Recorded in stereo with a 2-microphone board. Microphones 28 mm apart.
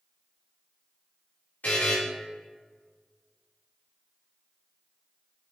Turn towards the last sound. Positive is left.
turn(degrees=80)